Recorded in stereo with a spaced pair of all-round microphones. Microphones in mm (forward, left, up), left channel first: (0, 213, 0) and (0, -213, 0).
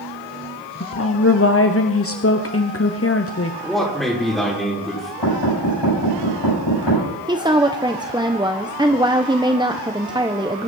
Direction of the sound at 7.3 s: 10° right (ahead or behind).